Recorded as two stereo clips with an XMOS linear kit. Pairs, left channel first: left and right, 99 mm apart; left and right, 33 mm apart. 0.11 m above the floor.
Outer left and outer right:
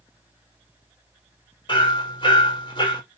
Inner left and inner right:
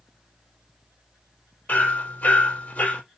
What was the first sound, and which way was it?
Hammering, 55° left (ahead or behind).